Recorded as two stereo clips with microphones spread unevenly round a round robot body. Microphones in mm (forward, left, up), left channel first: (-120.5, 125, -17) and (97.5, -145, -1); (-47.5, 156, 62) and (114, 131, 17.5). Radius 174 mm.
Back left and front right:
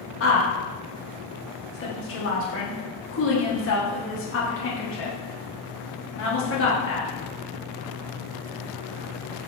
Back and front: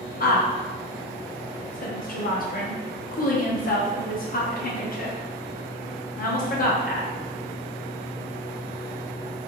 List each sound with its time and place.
0.2 s a woman speaking: 155° left, 0.8 m